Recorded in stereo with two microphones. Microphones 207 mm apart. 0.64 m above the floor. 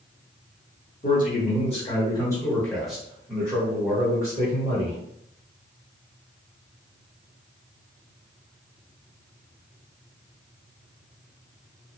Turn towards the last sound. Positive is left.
turn(degrees=-35)  # may be behind; listen again after turning